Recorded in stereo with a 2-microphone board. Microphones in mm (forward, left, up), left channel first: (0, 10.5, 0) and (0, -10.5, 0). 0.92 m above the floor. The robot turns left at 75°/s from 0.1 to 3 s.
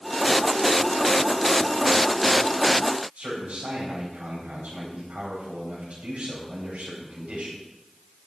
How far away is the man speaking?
About 4 m.